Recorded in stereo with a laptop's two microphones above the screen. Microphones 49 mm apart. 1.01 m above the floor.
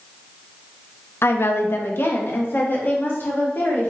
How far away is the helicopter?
I don't hear a helicopter.